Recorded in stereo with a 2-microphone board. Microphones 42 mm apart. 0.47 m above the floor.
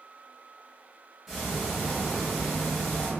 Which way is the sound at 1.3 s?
5° right (ahead or behind).